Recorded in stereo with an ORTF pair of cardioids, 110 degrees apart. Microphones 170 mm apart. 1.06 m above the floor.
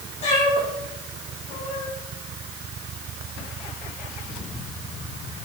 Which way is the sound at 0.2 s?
40° left.